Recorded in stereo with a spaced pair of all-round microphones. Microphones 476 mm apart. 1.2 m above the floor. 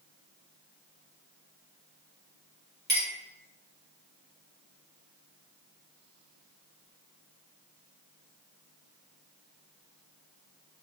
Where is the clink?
20° right (ahead or behind), 1.2 m.